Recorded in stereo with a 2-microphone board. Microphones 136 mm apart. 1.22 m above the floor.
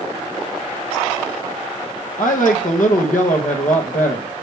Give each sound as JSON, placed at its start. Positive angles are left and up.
{"t": 2.2, "sound": "a woman speaking", "side_deg": 80, "distance_m": 1.1}